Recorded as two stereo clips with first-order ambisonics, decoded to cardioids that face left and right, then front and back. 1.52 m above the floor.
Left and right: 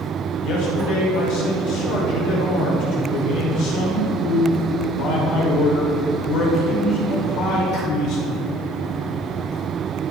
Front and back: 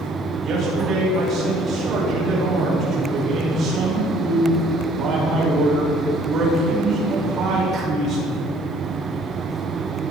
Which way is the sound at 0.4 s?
120° left.